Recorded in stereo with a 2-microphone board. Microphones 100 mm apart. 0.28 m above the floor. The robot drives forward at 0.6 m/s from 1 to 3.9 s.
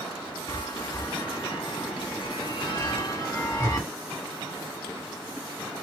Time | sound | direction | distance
0.5 | a chime | 45° left (ahead or behind) | 1.1 m